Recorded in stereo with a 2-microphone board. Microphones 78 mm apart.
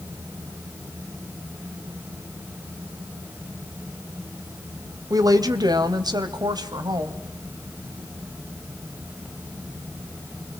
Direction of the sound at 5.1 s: 50° right (ahead or behind).